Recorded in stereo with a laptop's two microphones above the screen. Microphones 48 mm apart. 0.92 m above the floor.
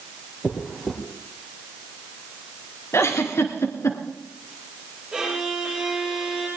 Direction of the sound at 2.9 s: 65° left (ahead or behind).